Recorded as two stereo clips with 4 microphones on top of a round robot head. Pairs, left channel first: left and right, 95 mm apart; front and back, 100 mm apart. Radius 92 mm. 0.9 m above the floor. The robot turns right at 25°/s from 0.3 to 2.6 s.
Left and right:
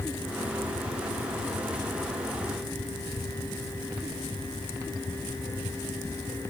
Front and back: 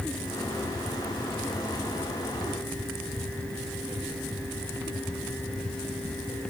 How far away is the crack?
I don't hear a crack.